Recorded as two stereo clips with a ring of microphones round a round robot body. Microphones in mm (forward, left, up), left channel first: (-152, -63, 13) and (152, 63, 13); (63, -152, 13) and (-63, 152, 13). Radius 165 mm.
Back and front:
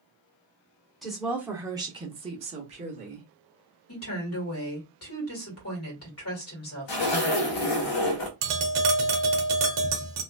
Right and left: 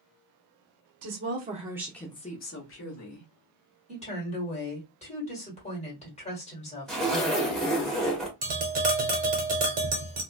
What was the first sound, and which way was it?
A woman speaking, 115° left.